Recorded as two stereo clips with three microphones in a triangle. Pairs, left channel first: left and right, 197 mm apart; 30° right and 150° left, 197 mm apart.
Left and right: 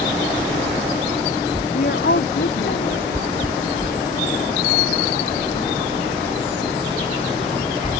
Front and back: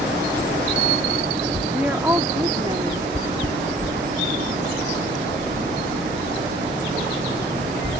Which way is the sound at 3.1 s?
25° left.